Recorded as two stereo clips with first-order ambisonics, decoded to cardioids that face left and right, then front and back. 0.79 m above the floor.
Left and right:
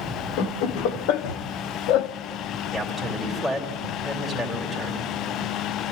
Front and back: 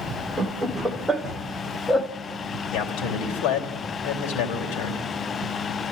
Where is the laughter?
100° left, 1.9 m; by 2.1 s 75° left, 1.0 m.